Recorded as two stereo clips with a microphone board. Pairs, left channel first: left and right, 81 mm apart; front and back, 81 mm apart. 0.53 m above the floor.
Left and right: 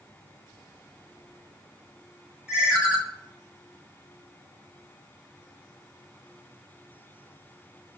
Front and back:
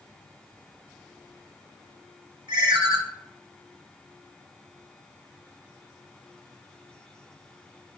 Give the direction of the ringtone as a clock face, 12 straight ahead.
6 o'clock.